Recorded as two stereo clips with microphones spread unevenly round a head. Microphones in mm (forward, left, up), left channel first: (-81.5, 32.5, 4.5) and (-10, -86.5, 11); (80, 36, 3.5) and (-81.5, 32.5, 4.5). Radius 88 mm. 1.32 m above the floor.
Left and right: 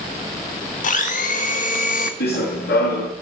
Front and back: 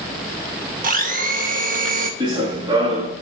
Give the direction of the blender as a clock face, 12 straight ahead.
7 o'clock.